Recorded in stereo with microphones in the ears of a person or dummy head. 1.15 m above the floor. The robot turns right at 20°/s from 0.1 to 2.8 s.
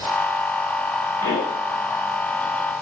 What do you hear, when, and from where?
1.2 s a pop: 20° left (ahead or behind), 3 m; by 1.6 s 10° left (ahead or behind), 3 m